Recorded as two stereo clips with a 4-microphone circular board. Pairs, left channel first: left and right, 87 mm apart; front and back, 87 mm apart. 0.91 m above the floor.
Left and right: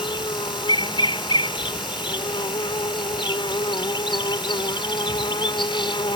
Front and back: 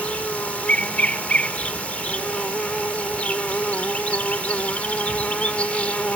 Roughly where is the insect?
Left.